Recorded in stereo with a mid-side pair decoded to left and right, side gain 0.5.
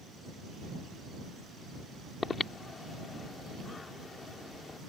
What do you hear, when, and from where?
2.2 s breathing: 30° left